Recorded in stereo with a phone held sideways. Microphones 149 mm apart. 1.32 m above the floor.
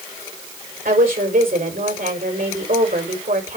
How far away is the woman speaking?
About 5 m.